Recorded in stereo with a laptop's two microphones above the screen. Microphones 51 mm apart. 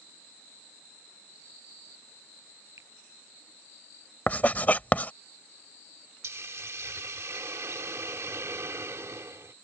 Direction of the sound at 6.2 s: 65° right (ahead or behind).